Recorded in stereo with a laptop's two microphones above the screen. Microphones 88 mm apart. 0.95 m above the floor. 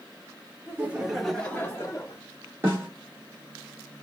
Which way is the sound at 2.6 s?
25° right (ahead or behind).